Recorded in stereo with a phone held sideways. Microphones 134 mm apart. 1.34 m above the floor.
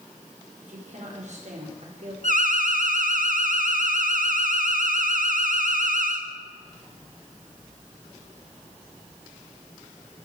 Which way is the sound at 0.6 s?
60° right (ahead or behind).